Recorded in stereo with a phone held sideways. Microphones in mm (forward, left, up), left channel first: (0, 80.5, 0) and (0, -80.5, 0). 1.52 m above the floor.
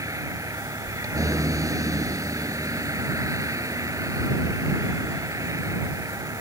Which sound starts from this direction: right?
A vehicle, at 0.0 s.